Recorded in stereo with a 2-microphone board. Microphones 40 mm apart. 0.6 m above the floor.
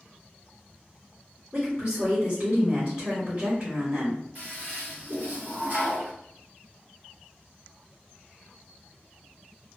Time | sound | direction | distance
1.5 | a woman speaking | 25° right (ahead or behind) | 1.6 m
4.3 | a toilet flushing | 40° right (ahead or behind) | 1.4 m